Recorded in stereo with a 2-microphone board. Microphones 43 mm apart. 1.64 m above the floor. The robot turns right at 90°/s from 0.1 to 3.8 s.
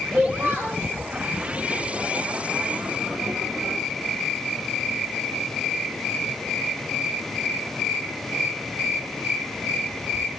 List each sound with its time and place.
0.1 s a child speaking: 150° right, 3.5 m; by 0.8 s 85° right, 3.5 m